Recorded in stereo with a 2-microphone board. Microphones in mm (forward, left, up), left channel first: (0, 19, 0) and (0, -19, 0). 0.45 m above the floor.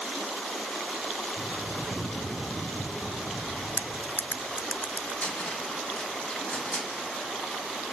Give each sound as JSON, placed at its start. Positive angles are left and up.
{"t": 1.4, "sound": "a bird", "side_deg": 65, "distance_m": 10.0}
{"t": 3.8, "sound": "cutlery clinking", "side_deg": 60, "distance_m": 0.6}
{"t": 5.2, "sound": "a cupboard door", "side_deg": 35, "distance_m": 2.5}